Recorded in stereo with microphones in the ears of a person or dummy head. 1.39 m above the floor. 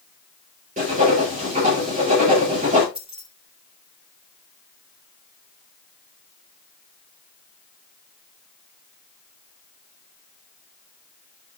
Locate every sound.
0.8 s writing: 40° right (ahead or behind), 6.5 m
3.0 s keys jangling: centre (ahead or behind), 3 m